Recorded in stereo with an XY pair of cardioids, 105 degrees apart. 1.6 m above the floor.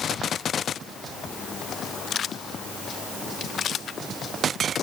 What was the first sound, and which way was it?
Only background noise.